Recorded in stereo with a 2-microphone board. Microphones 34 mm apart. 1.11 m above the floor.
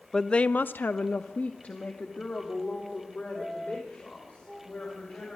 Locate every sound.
0.1 s a woman speaking: 15° left (ahead or behind), 0.7 m; by 5.4 s 35° left (ahead or behind), 5.5 m